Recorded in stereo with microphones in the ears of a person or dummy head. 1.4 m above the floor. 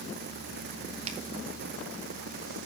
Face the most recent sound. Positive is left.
turn(degrees=-40)  # may be behind; listen again after turning